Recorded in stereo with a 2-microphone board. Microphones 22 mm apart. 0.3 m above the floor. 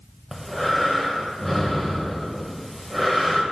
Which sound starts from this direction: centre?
Breathing, at 0.3 s.